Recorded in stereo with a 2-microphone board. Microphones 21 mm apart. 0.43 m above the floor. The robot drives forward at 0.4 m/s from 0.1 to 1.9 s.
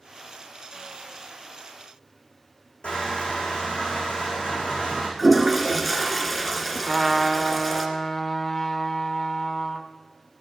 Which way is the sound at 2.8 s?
65° left (ahead or behind).